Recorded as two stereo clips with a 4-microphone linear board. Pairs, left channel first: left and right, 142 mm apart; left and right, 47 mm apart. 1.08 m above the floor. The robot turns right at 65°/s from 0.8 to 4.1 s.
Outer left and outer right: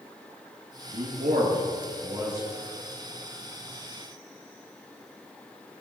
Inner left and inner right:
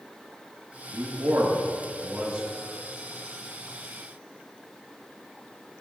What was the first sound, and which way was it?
A man speaking, 65° right (ahead or behind).